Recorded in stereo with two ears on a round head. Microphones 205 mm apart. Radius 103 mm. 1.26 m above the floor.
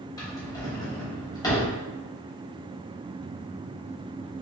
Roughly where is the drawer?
Centre.